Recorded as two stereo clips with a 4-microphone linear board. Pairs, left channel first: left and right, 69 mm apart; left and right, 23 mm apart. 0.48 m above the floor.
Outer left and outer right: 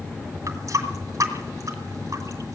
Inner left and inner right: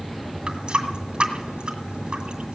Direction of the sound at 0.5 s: 50° right (ahead or behind).